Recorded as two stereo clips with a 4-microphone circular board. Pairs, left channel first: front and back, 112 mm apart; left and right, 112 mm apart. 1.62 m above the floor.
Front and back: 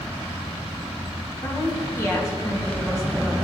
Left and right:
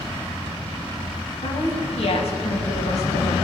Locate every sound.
1.4 s a woman speaking: 65° left, 2 m